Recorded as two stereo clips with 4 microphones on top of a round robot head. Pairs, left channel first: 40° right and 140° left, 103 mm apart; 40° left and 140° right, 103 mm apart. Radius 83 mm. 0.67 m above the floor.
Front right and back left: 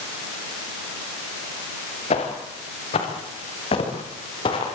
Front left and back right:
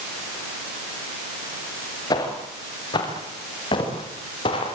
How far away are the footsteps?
About 7 m.